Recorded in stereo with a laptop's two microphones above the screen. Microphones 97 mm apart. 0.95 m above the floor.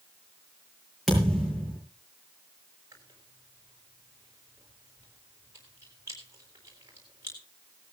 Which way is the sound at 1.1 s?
Centre (ahead or behind).